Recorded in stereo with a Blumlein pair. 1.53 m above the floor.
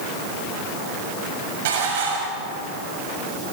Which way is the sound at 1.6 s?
55° right.